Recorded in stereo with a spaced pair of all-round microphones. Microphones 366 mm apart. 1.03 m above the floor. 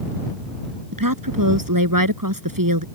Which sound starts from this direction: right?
A woman speaking, at 0.9 s.